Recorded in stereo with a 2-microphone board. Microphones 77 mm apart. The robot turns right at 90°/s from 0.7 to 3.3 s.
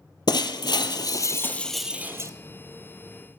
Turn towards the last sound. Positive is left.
turn(degrees=-45)